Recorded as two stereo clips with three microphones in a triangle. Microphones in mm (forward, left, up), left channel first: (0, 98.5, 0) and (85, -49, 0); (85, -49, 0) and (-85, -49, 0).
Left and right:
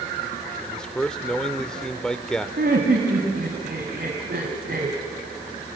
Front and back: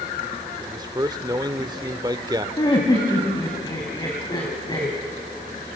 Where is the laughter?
65° right, 2.5 m.